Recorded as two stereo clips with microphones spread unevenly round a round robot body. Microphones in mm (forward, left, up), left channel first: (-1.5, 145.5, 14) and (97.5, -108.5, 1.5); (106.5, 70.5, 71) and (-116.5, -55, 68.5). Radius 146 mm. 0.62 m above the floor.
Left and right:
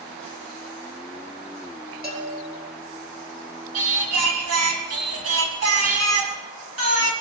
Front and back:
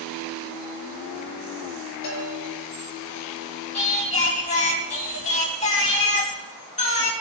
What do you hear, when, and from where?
2.0 s a bell: 15° right, 6.5 m
3.7 s singing: 35° right, 3.5 m